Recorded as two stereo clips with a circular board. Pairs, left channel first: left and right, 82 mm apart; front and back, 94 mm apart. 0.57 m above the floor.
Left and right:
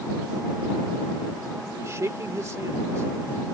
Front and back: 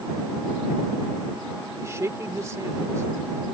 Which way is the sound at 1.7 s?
130° right.